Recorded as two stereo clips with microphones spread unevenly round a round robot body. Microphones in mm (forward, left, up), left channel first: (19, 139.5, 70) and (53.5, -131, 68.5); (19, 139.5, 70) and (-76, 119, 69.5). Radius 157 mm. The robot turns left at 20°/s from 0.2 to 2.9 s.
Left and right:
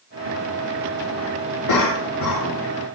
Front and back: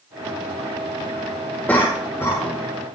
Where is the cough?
85° left, 4 m; by 2.6 s 70° left, 4 m.